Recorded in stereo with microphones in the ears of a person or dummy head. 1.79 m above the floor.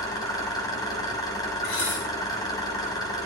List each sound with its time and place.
0.0 s an engine running: 25° left (ahead or behind), 3.5 m
1.6 s dishes clattering: 85° left, 9 m